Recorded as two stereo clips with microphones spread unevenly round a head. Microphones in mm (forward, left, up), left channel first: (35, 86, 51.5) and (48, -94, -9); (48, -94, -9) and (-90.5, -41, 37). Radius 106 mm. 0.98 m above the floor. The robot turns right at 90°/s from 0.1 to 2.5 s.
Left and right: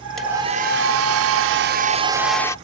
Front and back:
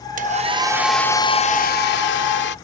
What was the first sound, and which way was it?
A hair dryer, 175° left.